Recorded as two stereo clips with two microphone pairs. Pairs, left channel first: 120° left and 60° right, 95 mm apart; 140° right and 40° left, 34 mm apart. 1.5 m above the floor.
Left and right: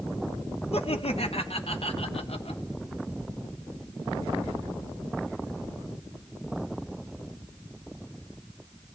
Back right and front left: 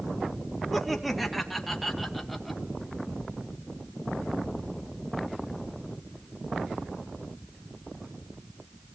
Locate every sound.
0.7 s laughter: 135° left, 2 m